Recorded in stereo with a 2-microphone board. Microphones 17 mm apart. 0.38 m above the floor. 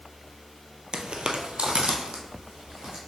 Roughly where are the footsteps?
Right.